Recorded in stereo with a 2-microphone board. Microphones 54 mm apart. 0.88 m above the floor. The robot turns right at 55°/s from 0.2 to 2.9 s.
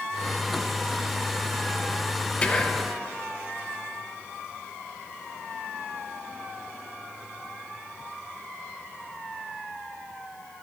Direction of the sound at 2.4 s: 20° left (ahead or behind).